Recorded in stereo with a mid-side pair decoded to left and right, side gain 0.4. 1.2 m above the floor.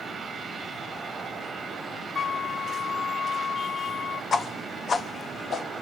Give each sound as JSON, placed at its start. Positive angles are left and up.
{"t": 2.1, "sound": "a flute", "azimuth_deg": 40, "distance_m": 1.0}
{"t": 4.3, "sound": "a whoosh", "azimuth_deg": 55, "distance_m": 1.2}